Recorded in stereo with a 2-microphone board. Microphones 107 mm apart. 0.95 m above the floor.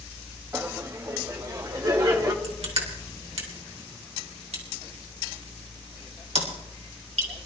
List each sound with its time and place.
0.5 s laughter: 20° right (ahead or behind), 1.5 m; by 2.3 s 40° right (ahead or behind), 2.5 m
2.4 s crushing: 75° right (ahead or behind), 3.5 m